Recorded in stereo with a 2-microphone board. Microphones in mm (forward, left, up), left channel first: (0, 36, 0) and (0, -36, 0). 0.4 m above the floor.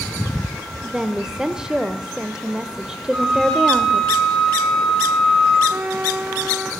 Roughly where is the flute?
Centre.